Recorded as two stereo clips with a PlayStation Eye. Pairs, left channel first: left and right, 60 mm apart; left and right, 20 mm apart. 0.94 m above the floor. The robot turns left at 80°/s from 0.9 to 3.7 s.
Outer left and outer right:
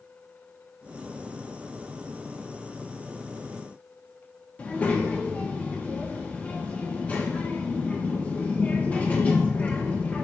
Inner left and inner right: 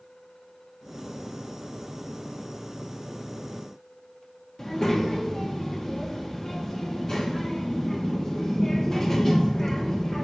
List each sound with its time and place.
4.6 s a child speaking: 25° left (ahead or behind), 1.1 m